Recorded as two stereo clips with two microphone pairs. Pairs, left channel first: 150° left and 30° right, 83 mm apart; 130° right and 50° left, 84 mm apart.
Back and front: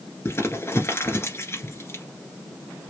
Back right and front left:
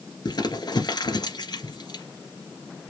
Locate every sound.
0.2 s crumpling: 155° right, 1.7 m